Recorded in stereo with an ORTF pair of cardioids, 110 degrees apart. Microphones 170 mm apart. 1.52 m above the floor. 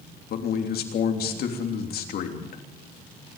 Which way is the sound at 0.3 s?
65° left.